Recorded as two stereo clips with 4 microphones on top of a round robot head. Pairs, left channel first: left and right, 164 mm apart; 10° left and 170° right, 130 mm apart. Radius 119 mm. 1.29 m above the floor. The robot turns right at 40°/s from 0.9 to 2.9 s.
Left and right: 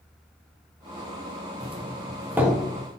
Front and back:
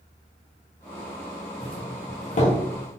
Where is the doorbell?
40° right, 1.2 m; by 2.6 s straight ahead, 1.2 m.